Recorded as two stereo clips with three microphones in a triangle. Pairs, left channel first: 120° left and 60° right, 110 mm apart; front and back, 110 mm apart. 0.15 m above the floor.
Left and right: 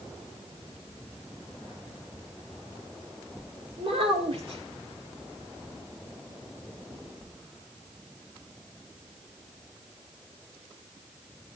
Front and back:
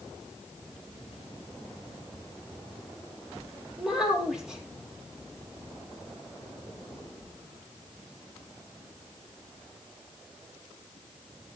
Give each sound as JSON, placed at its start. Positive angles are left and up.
{"t": 3.8, "sound": "a child speaking", "azimuth_deg": -95, "distance_m": 4.0}